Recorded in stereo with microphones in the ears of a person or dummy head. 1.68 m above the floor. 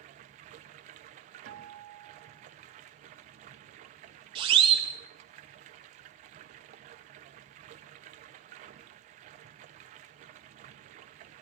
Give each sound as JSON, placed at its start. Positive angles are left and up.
{"t": 0.0, "sound": "running water", "side_deg": -35, "distance_m": 0.8}
{"t": 1.4, "sound": "a guitar", "side_deg": -75, "distance_m": 2.5}
{"t": 4.3, "sound": "a siren", "side_deg": -30, "distance_m": 3.0}